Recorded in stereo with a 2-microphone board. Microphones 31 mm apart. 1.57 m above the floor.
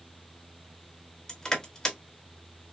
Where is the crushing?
15° left (ahead or behind), 1.4 m.